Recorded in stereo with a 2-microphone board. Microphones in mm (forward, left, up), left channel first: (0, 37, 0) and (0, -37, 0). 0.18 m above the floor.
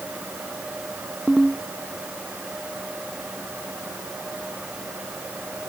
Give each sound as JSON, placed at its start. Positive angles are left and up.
{"t": 1.3, "sound": "a ringtone", "side_deg": 0}